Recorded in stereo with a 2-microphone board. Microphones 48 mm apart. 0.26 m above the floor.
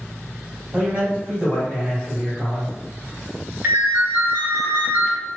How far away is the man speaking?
About 1.7 m.